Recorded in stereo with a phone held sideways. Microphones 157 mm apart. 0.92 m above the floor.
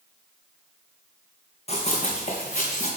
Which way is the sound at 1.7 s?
40° left (ahead or behind).